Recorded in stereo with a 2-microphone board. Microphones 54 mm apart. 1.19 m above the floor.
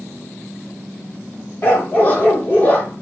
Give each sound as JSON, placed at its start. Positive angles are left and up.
{"t": 1.6, "sound": "a dog barking", "side_deg": 30, "distance_m": 1.2}